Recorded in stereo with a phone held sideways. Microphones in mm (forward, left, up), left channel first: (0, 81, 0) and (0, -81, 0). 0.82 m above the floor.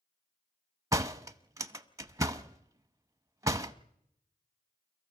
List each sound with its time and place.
0.9 s a door slam: 20° right (ahead or behind), 0.7 m